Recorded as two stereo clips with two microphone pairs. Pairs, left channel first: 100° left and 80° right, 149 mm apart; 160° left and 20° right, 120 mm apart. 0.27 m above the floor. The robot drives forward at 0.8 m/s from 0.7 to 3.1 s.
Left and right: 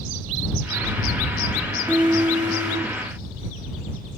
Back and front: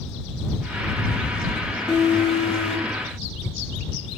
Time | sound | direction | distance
1.9 | an alarm | 160° right | 3.5 m